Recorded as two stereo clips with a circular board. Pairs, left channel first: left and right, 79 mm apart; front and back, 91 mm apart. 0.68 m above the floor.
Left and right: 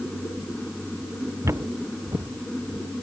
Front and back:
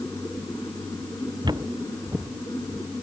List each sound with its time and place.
1.4 s footsteps: 145° right; by 2.9 s 115° right